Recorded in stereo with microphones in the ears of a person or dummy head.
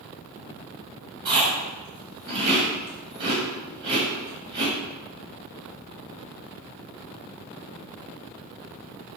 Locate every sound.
1.2 s chewing: 25° right (ahead or behind), 1.3 m